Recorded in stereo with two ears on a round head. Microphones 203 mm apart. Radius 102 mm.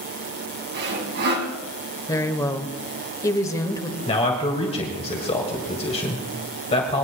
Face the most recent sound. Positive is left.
turn(degrees=25)  # may be behind; listen again after turning